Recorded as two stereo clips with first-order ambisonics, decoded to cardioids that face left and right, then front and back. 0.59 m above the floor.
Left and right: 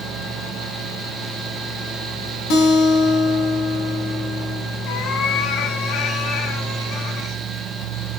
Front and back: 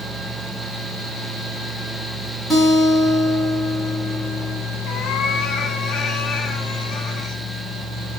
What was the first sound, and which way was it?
A guitar, 95° left.